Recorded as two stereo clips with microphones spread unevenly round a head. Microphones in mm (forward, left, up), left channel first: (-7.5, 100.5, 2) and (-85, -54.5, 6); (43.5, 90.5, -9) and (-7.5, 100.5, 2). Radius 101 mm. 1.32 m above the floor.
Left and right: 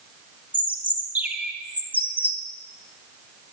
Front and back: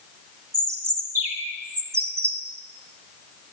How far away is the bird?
About 1.8 m.